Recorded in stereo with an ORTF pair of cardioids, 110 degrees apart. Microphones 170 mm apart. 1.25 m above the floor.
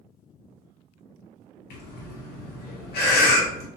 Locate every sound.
1.7 s breathing: 70° left, 0.9 m